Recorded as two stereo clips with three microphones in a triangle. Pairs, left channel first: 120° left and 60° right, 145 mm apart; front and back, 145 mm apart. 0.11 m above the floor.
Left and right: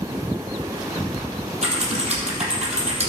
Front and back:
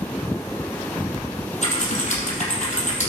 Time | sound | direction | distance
1.6 | typing on a keyboard | 25° right | 4 m